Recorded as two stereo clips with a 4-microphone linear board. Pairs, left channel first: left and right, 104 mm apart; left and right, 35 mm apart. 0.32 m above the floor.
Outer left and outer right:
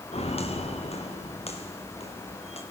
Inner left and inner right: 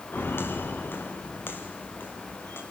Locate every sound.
0.1 s footsteps: 85° left, 3.5 m